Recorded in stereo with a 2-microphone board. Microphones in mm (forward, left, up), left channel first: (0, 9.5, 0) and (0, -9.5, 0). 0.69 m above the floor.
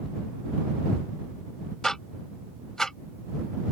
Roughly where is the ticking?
Left.